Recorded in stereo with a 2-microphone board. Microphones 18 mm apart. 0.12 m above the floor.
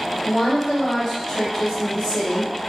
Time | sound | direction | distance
0.2 | a woman speaking | 30° left (ahead or behind) | 1.8 m